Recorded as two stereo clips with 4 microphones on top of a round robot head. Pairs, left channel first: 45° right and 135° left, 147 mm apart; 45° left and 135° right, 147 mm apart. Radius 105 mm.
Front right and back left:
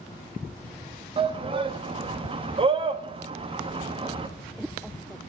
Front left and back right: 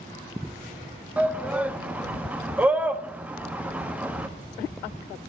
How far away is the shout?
About 1.2 m.